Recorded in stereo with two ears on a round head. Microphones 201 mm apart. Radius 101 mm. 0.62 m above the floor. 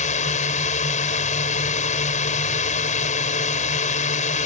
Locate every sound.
0.0 s a drone: 35° left (ahead or behind)